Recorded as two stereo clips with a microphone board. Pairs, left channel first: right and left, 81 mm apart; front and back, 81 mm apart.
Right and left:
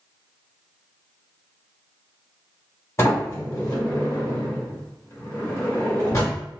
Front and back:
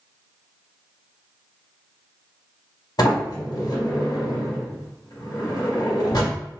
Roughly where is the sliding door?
Ahead right.